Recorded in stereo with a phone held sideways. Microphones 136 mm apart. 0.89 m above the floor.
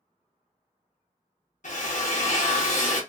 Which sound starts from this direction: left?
A drill, at 1.6 s.